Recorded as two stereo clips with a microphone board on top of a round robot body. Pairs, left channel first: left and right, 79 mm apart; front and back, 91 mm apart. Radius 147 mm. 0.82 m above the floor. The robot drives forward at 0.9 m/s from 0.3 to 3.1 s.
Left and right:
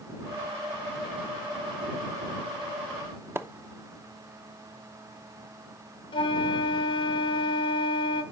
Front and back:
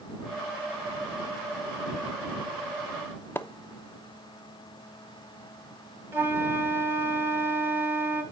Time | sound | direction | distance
3.4 | a splash | 50° right | 0.9 m
6.1 | a flute | 110° left | 0.9 m